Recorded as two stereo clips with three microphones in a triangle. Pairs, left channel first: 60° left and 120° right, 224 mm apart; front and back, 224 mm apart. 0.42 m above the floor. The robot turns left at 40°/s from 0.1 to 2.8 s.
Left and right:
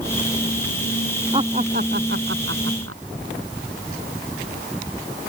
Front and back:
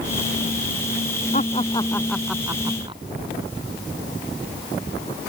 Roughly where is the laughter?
Ahead right.